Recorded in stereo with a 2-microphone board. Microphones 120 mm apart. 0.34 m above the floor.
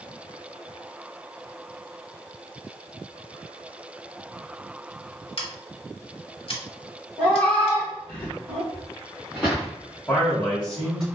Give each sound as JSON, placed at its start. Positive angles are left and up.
{"t": 5.4, "sound": "scissors", "side_deg": 55, "distance_m": 0.8}
{"t": 7.2, "sound": "a cat meowing", "side_deg": 15, "distance_m": 1.3}
{"t": 8.7, "sound": "footsteps", "side_deg": -10, "distance_m": 1.8}
{"t": 10.1, "sound": "a man speaking", "side_deg": 5, "distance_m": 1.8}